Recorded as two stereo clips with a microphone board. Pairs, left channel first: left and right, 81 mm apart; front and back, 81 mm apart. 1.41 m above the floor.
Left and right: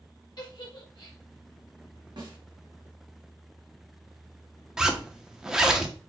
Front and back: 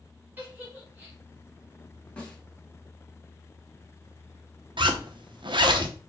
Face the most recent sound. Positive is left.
turn(degrees=-175)